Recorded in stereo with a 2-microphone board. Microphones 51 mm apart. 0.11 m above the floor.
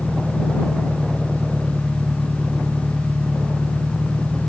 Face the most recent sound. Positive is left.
turn(degrees=-15)  # may be behind; listen again after turning